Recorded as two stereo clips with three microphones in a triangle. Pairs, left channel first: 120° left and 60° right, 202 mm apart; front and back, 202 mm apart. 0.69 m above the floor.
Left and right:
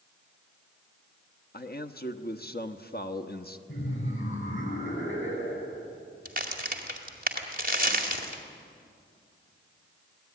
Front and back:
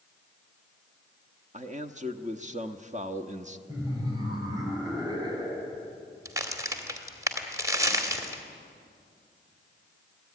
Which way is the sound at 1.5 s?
135° left.